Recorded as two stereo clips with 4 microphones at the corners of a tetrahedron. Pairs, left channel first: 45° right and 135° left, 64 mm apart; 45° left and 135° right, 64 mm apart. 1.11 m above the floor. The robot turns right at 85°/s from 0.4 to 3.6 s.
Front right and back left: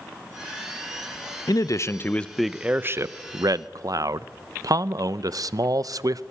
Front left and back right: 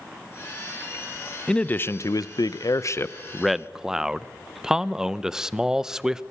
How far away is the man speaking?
About 0.6 m.